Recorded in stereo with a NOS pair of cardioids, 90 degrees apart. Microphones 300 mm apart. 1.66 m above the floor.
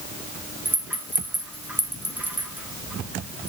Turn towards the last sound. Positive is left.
turn(degrees=-5)